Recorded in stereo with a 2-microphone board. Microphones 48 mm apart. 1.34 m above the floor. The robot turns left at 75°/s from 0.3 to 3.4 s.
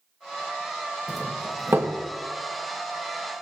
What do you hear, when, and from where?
1.1 s a doorbell: 5° right (ahead or behind), 1.2 m; by 1.9 s 60° right (ahead or behind), 1.2 m